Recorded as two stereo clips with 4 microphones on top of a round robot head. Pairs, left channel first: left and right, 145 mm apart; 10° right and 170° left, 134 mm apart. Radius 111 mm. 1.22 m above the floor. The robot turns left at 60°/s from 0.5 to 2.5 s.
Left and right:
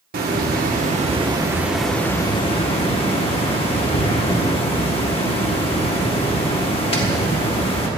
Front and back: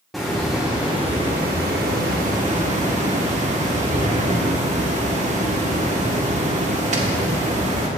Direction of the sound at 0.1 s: 100° right.